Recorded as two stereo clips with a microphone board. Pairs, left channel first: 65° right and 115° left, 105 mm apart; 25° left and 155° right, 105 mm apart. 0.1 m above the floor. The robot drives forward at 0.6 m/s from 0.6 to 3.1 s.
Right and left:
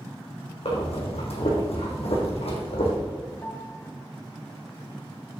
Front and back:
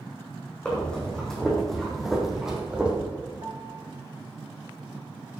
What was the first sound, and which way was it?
Breathing, 55° right.